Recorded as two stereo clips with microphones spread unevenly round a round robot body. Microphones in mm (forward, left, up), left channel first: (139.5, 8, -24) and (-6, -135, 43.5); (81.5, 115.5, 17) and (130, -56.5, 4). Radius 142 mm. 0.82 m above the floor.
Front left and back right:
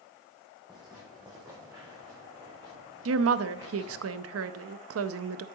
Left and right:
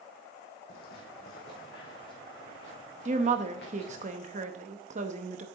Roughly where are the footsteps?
Behind left.